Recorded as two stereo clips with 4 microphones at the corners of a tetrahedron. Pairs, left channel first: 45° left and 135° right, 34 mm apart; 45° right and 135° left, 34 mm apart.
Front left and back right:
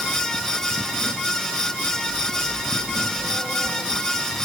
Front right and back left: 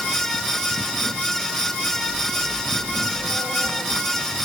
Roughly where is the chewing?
I don't hear chewing.